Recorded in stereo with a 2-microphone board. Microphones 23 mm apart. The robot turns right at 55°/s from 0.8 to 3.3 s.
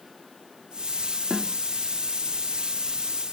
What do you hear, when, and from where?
1.3 s a snare drum: 35° right (ahead or behind), 0.7 m; by 1.6 s 40° right (ahead or behind), 0.7 m